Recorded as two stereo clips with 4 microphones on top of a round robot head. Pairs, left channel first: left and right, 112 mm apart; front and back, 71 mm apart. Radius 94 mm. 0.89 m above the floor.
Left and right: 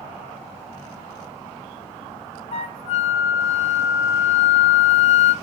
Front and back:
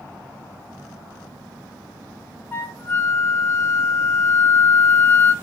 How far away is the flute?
About 0.9 m.